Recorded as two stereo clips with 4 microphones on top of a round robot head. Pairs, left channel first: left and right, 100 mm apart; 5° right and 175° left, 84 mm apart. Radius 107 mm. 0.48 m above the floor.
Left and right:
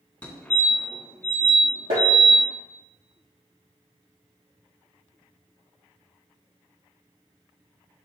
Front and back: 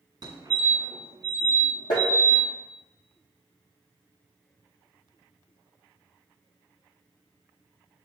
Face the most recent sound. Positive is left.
turn(degrees=-55)